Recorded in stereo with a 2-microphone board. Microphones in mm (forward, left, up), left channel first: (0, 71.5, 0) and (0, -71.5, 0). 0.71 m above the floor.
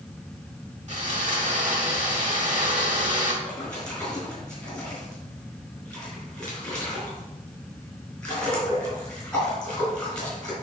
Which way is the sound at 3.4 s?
10° left (ahead or behind).